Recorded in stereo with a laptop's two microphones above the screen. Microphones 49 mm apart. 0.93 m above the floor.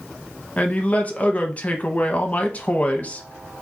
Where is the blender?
I don't hear a blender.